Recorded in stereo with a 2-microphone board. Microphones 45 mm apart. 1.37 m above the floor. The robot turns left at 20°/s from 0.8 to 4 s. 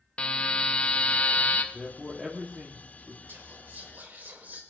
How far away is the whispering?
About 3 m.